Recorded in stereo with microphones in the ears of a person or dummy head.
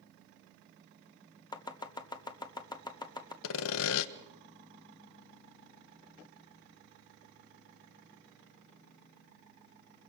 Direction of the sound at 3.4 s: 75° left (ahead or behind).